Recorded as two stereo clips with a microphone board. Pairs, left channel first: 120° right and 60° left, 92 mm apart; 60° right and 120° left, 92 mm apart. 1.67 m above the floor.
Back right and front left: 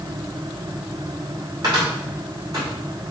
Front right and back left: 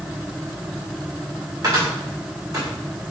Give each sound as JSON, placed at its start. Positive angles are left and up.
{"t": 1.6, "sound": "a cupboard door", "azimuth_deg": 85, "distance_m": 1.9}